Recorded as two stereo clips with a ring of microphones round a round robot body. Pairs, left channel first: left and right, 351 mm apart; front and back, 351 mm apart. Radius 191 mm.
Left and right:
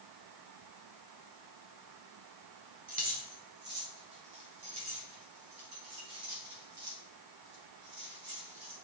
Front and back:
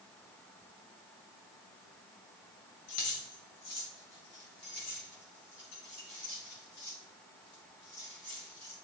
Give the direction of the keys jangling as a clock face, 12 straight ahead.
1 o'clock.